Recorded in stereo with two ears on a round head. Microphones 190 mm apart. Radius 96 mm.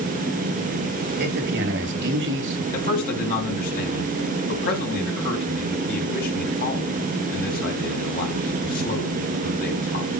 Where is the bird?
No bird in this recording.